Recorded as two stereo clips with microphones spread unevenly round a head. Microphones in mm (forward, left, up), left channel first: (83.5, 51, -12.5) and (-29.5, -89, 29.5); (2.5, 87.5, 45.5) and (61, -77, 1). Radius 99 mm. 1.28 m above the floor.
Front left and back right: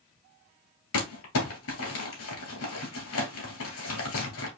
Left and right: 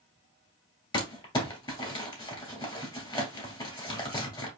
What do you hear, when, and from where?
0.9 s crumpling: 55° left, 2.5 m